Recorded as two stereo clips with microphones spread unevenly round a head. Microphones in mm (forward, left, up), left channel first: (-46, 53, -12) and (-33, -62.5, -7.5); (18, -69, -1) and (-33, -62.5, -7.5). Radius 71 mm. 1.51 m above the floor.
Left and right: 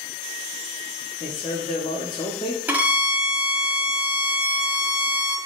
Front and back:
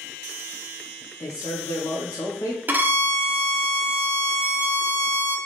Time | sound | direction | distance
1.2 | a man speaking | 35° left | 0.8 m
2.7 | a violin | 150° right | 0.6 m